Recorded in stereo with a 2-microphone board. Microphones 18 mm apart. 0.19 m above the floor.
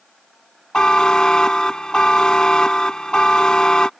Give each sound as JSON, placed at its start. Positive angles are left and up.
{"t": 0.7, "sound": "a buzzer", "side_deg": 50}